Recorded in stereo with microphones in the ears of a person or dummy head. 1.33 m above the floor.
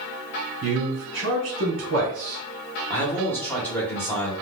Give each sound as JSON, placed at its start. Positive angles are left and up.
{"t": 0.6, "sound": "a man speaking", "side_deg": -70, "distance_m": 1.4}
{"t": 2.9, "sound": "a man speaking", "side_deg": 15, "distance_m": 1.1}